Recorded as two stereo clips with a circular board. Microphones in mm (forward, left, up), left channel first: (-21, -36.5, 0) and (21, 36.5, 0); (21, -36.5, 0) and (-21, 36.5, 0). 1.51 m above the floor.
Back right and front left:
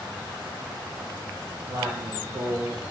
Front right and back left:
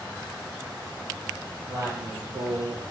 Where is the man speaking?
60° left, 0.9 m; by 2.9 s 140° left, 0.6 m.